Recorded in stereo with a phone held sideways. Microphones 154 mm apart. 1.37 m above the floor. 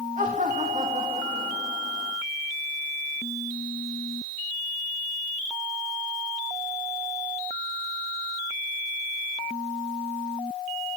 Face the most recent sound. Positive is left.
turn(degrees=-45)  # may be behind; listen again after turning